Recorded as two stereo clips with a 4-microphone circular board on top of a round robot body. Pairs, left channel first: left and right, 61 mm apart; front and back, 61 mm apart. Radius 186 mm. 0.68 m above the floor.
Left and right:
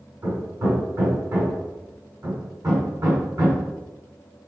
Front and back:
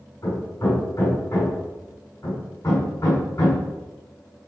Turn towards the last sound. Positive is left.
turn(degrees=-50)